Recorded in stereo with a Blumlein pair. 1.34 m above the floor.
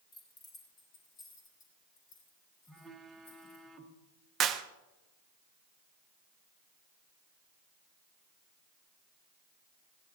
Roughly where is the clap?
Ahead right.